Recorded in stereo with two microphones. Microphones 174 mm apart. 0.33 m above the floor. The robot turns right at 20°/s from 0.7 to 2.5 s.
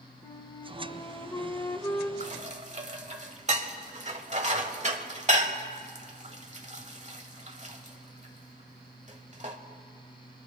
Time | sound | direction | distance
0.2 | a flute | 20° left (ahead or behind) | 0.9 m
2.2 | dishes clattering | 45° right (ahead or behind) | 1.1 m